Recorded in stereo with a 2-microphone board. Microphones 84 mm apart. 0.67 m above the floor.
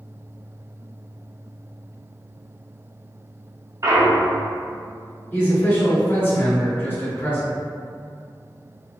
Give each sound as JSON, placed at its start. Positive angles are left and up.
{"t": 3.8, "sound": "a clunk", "side_deg": -40, "distance_m": 0.5}
{"t": 5.3, "sound": "a man speaking", "side_deg": 25, "distance_m": 1.7}